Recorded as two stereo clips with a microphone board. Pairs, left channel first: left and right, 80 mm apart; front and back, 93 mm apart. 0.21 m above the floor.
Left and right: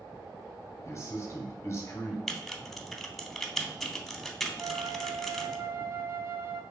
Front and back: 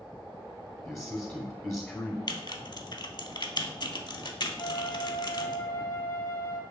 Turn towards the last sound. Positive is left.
turn(degrees=-40)